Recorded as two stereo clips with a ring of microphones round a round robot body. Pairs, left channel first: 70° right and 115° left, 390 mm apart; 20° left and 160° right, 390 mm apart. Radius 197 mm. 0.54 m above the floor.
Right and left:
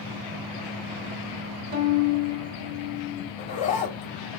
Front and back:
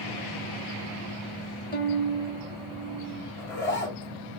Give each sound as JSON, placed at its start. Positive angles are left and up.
{"t": 1.7, "sound": "a violin", "azimuth_deg": 90, "distance_m": 1.0}
{"t": 3.4, "sound": "a zipper", "azimuth_deg": -5, "distance_m": 1.6}